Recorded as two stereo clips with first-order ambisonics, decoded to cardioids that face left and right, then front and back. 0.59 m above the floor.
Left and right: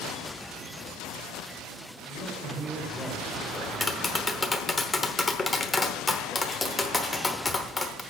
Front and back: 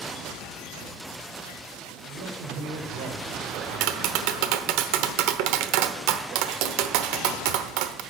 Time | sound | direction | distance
2.1 | a man speaking | 175° left | 2.5 m
3.5 | tapping | 170° left | 1.0 m